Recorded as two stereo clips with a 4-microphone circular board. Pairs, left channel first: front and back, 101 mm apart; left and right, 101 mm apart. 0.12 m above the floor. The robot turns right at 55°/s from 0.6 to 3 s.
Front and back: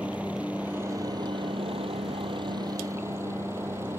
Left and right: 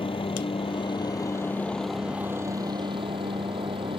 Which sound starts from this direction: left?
A helicopter, at 0.0 s.